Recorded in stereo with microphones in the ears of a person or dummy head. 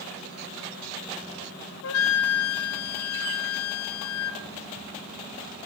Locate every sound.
1.8 s a flute: 70° left (ahead or behind), 0.8 m